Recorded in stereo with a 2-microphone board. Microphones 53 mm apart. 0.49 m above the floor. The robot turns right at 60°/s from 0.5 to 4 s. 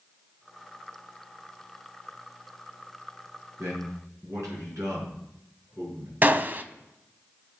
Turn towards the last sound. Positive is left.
turn(degrees=-40)  # may be behind; listen again after turning